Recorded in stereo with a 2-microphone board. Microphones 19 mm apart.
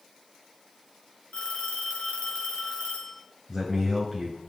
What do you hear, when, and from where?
1.3 s a phone ringing: 70° left (ahead or behind), 3 m
3.5 s a man speaking: 10° left (ahead or behind), 2.0 m